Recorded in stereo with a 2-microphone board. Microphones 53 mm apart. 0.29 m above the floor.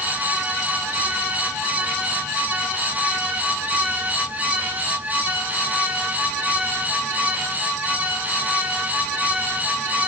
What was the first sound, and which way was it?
Only background noise.